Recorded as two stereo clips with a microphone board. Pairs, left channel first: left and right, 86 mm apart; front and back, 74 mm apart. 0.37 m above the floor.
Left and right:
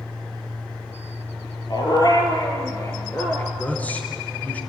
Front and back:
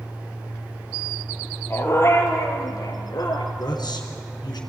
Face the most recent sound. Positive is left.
turn(degrees=20)